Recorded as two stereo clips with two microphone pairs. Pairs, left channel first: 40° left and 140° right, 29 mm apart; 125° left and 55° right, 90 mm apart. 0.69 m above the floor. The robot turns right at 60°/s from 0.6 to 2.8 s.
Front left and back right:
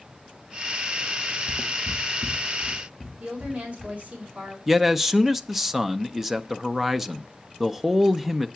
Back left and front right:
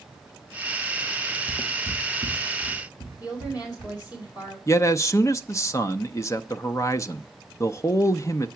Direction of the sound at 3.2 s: 170° left.